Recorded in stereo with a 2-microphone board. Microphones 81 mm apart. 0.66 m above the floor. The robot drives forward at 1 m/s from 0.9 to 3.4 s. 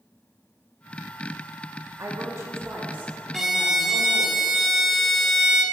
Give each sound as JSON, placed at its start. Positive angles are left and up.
{"t": 2.0, "sound": "a woman speaking", "side_deg": -40, "distance_m": 1.0}
{"t": 3.3, "sound": "a violin", "side_deg": -5, "distance_m": 0.5}